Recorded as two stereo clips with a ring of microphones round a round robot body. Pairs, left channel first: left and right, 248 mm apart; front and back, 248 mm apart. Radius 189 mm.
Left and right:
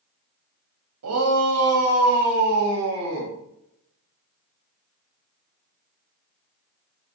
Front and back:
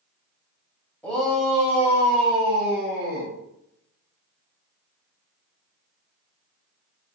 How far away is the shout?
About 3 m.